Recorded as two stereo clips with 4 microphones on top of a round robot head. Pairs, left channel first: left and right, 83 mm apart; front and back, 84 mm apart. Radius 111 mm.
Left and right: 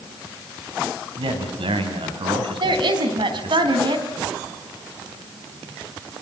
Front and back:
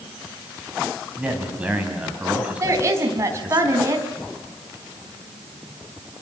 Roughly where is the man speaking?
Right.